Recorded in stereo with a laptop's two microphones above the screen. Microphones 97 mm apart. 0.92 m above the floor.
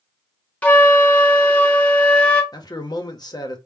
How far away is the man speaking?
About 0.9 m.